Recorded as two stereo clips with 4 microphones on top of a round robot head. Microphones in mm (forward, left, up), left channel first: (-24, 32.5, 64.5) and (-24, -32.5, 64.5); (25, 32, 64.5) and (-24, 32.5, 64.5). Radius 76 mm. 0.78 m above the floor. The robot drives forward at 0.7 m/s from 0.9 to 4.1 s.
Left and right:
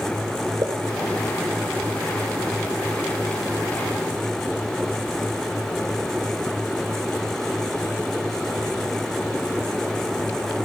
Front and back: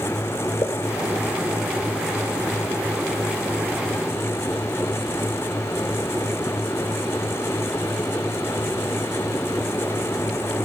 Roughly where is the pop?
Ahead right.